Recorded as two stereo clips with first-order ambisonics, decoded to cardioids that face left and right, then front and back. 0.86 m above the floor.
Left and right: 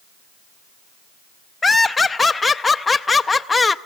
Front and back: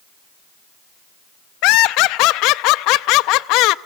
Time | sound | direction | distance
1.6 | laughter | 15° left | 0.5 m